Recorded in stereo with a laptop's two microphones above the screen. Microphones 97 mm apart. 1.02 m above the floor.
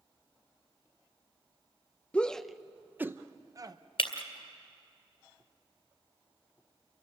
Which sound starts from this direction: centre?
A shout, at 2.1 s.